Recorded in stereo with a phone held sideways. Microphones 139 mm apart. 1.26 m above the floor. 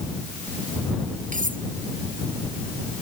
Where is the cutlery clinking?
65° right (ahead or behind).